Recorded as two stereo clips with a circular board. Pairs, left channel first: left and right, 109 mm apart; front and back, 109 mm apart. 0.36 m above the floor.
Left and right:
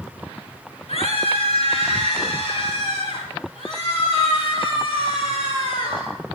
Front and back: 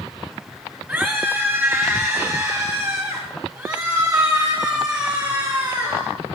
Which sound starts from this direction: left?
A scream, at 0.9 s.